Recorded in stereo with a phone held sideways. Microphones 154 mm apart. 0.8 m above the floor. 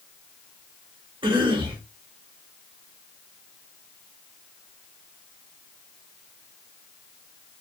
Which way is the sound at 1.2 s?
30° right (ahead or behind).